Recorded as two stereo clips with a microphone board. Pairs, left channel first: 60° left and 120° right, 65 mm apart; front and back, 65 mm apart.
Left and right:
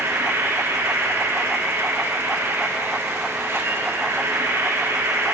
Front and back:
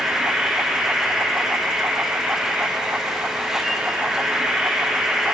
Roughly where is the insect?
Right.